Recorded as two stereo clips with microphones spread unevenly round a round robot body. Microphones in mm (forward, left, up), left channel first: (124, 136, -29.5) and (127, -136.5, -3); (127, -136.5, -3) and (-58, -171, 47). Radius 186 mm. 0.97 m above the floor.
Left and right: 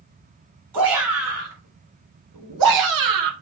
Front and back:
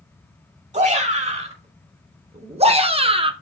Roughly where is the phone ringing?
No phone ringing in this recording.